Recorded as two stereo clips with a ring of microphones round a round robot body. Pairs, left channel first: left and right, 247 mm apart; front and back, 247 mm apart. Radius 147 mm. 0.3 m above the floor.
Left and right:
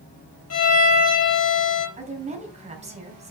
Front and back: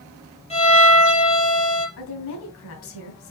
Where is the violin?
65° left, 4 m.